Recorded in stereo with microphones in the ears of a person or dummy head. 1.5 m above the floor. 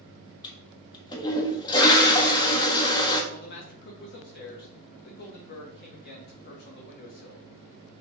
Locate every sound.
0.4 s a toilet flushing: 25° left (ahead or behind), 1.4 m
3.3 s a man speaking: 55° left (ahead or behind), 1.8 m